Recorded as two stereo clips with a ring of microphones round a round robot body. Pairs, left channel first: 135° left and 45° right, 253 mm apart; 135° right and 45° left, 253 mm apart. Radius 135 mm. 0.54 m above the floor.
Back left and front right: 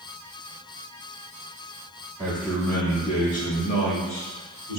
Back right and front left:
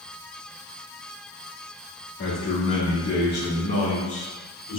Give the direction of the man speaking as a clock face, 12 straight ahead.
4 o'clock.